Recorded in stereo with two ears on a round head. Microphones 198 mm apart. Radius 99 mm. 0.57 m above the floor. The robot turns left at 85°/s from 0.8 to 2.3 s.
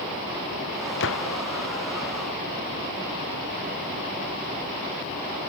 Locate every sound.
1.0 s a gunshot: 125° left; by 1.4 s 90° left